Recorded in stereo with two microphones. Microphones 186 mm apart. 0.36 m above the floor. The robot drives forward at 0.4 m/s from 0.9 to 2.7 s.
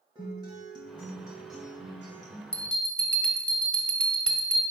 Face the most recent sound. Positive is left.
turn(degrees=5)  # may be behind; listen again after turning